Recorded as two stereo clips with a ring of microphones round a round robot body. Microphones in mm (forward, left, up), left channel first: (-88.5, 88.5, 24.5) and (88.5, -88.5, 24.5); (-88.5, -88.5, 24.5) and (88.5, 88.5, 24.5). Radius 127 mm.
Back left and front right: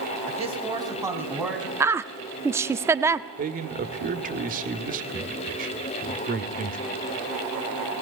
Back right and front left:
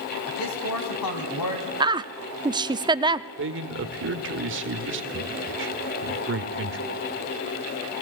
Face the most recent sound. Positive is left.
turn(degrees=10)